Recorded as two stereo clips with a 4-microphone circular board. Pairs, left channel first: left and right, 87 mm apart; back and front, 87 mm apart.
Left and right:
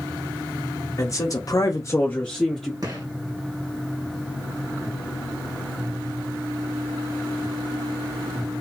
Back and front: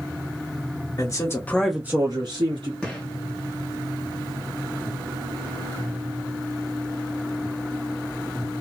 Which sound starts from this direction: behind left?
A man speaking, at 1.0 s.